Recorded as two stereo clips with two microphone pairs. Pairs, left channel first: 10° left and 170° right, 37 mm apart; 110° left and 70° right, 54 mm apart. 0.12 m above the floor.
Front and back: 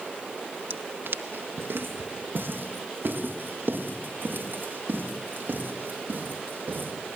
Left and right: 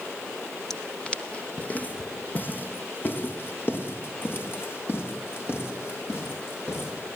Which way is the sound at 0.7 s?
165° right.